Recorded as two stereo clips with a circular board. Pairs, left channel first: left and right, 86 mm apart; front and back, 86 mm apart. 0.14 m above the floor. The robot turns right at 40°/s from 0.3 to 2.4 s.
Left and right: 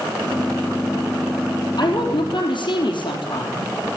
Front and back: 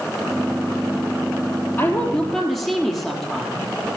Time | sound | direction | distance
1.8 | a woman speaking | 60° left | 3.5 m